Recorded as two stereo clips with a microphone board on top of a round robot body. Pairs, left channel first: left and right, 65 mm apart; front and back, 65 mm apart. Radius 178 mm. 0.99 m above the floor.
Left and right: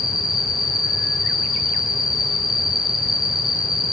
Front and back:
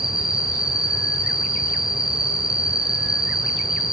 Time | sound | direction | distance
0.0 | an insect | 100° left | 1.6 m